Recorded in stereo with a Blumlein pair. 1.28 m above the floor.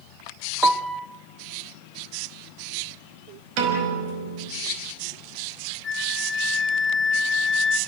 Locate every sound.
0.6 s a piano: 15° right, 0.9 m
3.6 s a piano: 45° right, 5 m
5.8 s a flute: 20° left, 1.1 m